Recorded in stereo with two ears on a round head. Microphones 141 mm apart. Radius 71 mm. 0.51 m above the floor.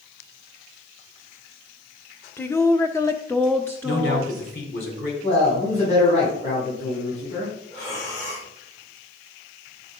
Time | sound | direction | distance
2.4 | a woman speaking | 15° left (ahead or behind) | 0.8 m
3.8 | a man speaking | 75° left (ahead or behind) | 4 m
5.2 | a man speaking | 40° left (ahead or behind) | 4 m
7.7 | breathing | 45° left (ahead or behind) | 4.5 m